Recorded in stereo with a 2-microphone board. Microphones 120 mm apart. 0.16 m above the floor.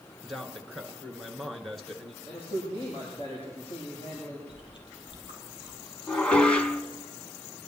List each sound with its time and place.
0.2 s a man speaking: centre (ahead or behind), 2 m
2.2 s a man speaking: 50° left (ahead or behind), 6.5 m
4.5 s chewing: 45° left (ahead or behind), 4 m
6.1 s dishes clattering: 10° left (ahead or behind), 0.9 m